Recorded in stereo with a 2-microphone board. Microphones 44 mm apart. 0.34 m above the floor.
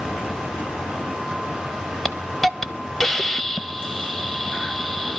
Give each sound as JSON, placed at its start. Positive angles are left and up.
{"t": 2.0, "sound": "a hiss", "side_deg": 5, "distance_m": 0.7}